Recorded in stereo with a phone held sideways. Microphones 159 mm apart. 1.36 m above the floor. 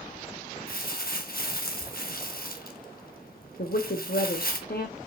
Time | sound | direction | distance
0.7 | crumpling | 70° left (ahead or behind) | 1.2 m
3.6 | a woman speaking | 70° left (ahead or behind) | 0.7 m